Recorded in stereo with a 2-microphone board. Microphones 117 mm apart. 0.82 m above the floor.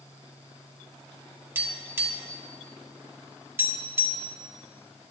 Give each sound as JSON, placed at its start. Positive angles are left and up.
{"t": 1.6, "sound": "tapping", "side_deg": -20, "distance_m": 2.0}